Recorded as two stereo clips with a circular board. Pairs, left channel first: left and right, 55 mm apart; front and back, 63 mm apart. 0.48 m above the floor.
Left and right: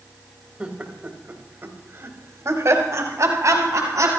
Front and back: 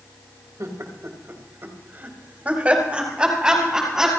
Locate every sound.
0.6 s laughter: 155° right, 3 m; by 4.1 s 95° right, 5 m